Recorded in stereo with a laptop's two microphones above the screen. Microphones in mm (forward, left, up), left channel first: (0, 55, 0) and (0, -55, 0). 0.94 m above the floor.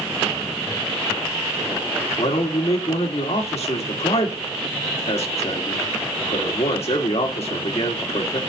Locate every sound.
2.2 s a man speaking: 70° left (ahead or behind), 2 m